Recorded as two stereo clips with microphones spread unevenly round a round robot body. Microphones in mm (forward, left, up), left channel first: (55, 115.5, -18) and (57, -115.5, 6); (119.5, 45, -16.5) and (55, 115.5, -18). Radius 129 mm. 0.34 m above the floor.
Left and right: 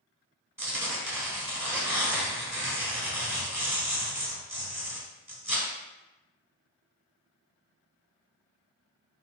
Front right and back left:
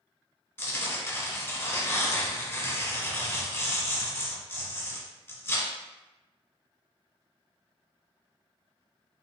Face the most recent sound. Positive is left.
turn(degrees=-10)